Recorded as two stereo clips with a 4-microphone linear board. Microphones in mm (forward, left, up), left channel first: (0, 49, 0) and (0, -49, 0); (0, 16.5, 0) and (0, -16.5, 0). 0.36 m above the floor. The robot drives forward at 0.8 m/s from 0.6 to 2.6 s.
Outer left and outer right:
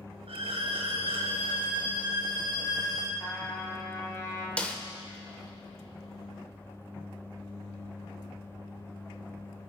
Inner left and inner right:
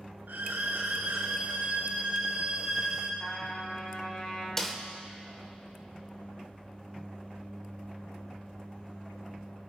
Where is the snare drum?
15° left (ahead or behind), 0.9 m.